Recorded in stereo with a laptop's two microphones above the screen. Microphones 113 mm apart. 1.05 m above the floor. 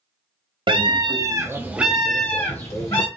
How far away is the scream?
About 0.9 m.